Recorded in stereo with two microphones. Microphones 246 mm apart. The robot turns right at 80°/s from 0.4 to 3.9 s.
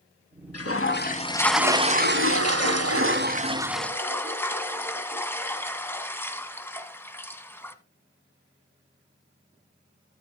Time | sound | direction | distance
0.5 | a toilet flushing | 100° left | 1.0 m